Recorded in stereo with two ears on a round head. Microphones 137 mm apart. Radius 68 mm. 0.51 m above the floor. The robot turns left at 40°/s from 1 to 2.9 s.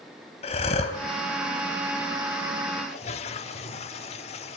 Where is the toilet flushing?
40° left (ahead or behind), 1.1 m.